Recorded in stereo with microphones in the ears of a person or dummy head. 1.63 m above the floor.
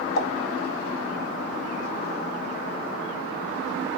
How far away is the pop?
About 0.6 m.